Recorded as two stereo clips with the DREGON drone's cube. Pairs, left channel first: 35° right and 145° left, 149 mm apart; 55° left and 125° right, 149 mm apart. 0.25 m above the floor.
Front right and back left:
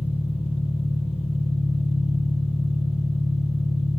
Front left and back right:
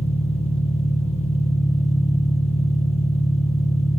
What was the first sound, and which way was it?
An engine running, 15° left.